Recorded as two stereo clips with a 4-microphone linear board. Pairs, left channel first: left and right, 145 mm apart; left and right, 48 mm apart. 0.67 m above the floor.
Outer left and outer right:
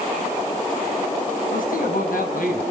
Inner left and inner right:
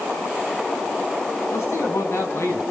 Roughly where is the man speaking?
Left.